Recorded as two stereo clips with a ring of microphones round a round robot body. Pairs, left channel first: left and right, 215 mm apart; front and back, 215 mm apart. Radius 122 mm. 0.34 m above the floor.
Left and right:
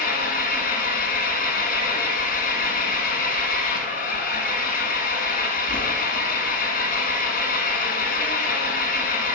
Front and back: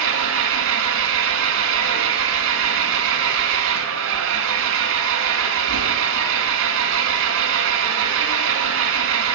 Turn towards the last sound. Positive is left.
turn(degrees=145)